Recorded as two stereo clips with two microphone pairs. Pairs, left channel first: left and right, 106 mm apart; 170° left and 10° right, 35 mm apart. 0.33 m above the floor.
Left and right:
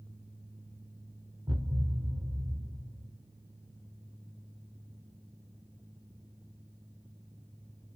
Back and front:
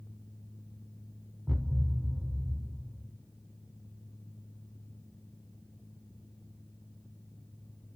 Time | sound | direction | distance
1.5 | a thud | 75° right | 1.4 m